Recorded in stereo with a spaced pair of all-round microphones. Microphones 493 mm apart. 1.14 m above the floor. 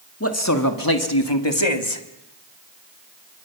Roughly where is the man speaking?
Left.